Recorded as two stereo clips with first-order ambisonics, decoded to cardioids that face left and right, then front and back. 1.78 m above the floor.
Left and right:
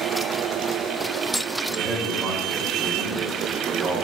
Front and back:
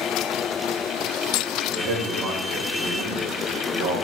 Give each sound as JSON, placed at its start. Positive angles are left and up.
{"t": 1.7, "sound": "a man speaking", "azimuth_deg": -155, "distance_m": 2.5}